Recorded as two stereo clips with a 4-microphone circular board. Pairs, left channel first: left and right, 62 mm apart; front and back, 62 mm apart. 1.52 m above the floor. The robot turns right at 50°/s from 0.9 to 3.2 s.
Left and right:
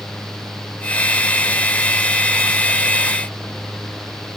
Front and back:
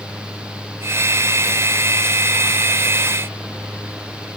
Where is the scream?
No scream in this recording.